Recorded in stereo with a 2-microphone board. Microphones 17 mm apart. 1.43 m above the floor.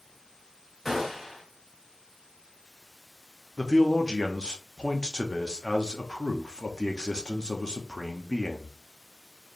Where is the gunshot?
10° right (ahead or behind), 1.5 m.